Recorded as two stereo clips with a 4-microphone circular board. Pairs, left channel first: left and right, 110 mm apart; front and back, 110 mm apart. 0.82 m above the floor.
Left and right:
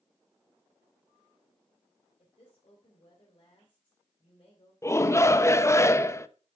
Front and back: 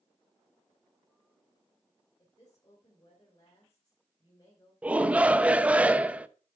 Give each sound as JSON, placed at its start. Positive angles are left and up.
{"t": 2.2, "sound": "a woman speaking", "azimuth_deg": 55, "distance_m": 3.0}
{"t": 4.8, "sound": "a shout", "azimuth_deg": 115, "distance_m": 0.6}